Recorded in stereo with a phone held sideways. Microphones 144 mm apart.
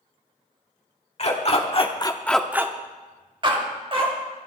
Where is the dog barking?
45° left (ahead or behind), 1.6 m; by 4.1 s 40° right (ahead or behind), 2.5 m.